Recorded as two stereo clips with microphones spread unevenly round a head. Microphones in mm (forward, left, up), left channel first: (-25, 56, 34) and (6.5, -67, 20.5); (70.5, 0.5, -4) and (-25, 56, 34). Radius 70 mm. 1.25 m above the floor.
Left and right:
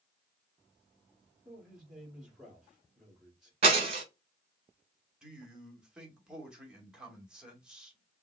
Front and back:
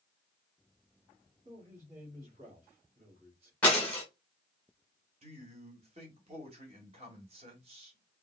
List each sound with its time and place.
1.4 s a man speaking: 160° right, 3 m
3.6 s breaking glass: 120° right, 1.8 m
5.2 s a man speaking: 160° right, 2.0 m